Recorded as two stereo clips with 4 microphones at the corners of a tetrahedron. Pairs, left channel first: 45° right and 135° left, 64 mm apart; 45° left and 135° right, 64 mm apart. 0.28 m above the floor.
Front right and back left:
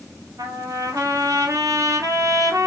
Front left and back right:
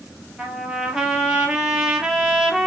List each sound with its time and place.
0.4 s a trumpet: 145° left, 1.3 m